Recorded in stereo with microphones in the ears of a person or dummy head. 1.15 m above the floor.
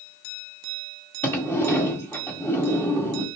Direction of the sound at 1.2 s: 15° left (ahead or behind).